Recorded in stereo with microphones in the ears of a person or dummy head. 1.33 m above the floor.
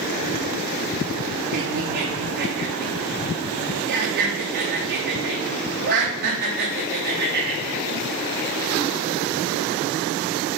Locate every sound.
1.5 s laughter: 45° right (ahead or behind), 3 m